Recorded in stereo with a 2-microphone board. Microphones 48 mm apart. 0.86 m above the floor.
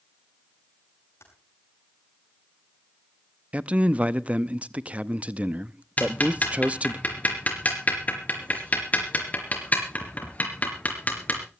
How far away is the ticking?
About 4 m.